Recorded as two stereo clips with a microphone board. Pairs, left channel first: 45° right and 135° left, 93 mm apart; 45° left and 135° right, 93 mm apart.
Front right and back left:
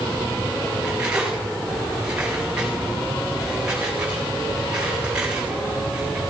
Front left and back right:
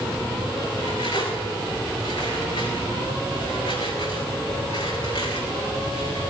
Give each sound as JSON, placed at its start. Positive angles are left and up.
{"t": 0.8, "sound": "cutlery clinking", "azimuth_deg": 55, "distance_m": 8.5}